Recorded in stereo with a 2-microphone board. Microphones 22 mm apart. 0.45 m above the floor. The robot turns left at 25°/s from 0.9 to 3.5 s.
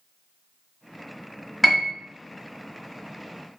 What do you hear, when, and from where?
1.6 s a piano: 10° left (ahead or behind), 1.4 m; by 1.9 s 15° left (ahead or behind), 1.4 m